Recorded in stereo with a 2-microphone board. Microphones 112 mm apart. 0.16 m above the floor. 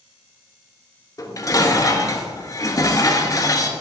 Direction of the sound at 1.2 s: 30° left (ahead or behind).